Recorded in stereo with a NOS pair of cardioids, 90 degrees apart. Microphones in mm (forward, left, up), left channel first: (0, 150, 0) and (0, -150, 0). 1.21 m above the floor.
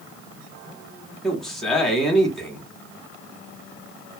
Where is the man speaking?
Straight ahead, 1.3 m.